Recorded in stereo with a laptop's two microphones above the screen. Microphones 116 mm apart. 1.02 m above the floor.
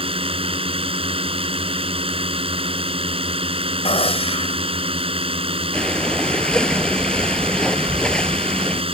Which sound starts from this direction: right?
A drone, at 0.0 s.